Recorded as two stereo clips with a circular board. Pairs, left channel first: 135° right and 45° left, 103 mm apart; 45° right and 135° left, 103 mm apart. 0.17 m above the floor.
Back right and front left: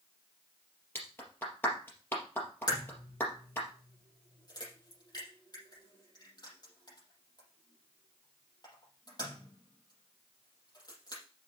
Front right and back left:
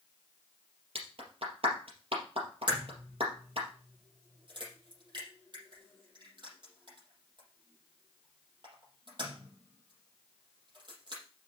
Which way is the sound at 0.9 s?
155° left.